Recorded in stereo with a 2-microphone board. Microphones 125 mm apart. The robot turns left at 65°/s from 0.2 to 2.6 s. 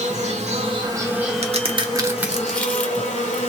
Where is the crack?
60° right (ahead or behind), 0.9 m; by 3.4 s 10° left (ahead or behind), 0.9 m.